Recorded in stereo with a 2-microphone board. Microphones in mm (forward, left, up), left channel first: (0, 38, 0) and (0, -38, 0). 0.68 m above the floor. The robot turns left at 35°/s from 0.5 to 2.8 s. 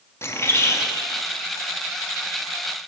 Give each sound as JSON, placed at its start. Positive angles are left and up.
{"t": 0.2, "sound": "a bird", "side_deg": 35, "distance_m": 0.5}